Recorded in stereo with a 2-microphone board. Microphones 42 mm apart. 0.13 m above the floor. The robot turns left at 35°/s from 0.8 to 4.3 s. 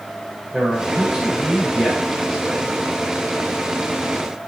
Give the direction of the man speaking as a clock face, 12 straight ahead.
5 o'clock.